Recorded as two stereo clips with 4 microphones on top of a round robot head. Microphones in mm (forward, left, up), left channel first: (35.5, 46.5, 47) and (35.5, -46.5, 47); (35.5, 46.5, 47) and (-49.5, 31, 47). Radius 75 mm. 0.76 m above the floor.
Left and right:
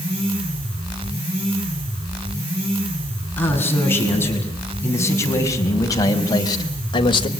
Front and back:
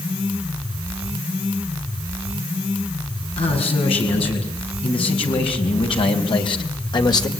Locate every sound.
3.4 s a man speaking: 20° left, 8 m; by 7.3 s 55° left, 3 m